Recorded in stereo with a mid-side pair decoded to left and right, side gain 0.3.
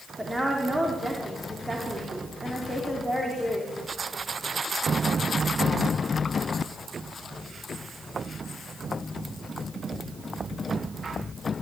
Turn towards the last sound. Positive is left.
turn(degrees=-20)